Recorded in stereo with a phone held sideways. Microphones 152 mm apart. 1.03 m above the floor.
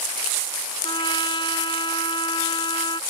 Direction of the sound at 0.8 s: 30° left (ahead or behind).